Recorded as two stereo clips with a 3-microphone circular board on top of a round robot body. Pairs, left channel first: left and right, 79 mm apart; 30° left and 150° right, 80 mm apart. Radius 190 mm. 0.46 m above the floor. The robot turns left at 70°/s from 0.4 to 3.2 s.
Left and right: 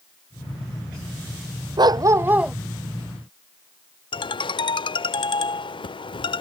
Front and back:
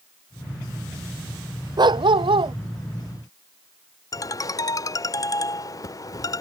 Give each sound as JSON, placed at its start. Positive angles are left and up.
{"t": 1.8, "sound": "a dog barking", "azimuth_deg": -120}
{"t": 4.1, "sound": "a ringtone", "azimuth_deg": 75}